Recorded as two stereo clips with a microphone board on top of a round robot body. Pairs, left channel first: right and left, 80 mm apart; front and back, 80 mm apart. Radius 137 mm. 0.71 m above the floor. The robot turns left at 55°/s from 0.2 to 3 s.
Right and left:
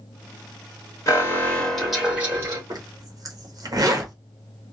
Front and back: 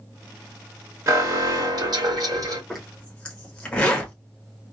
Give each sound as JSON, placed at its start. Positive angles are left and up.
{"t": 1.1, "sound": "an alarm", "azimuth_deg": -135, "distance_m": 2.0}
{"t": 2.7, "sound": "a zipper", "azimuth_deg": 90, "distance_m": 1.5}